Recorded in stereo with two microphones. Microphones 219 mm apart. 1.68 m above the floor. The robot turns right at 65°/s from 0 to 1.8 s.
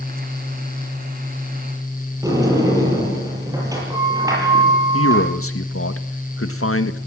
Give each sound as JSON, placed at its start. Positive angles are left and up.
{"t": 2.2, "sound": "a sliding door", "side_deg": -15, "distance_m": 8.0}
{"t": 4.9, "sound": "a man speaking", "side_deg": 75, "distance_m": 1.8}